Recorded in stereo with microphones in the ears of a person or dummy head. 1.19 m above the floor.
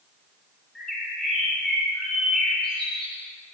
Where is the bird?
5° left (ahead or behind), 6 m.